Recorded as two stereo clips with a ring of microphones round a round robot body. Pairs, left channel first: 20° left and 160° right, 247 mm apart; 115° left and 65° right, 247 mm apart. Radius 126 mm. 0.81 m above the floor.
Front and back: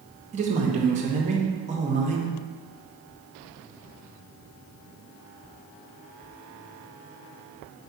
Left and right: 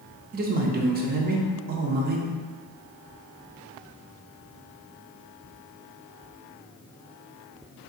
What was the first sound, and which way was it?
A man speaking, 105° right.